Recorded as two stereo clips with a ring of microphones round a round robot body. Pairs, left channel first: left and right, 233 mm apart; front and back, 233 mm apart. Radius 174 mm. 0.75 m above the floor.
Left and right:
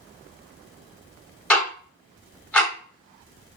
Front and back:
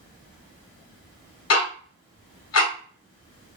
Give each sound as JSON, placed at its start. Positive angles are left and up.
{"t": 1.5, "sound": "ticking", "azimuth_deg": 5, "distance_m": 1.6}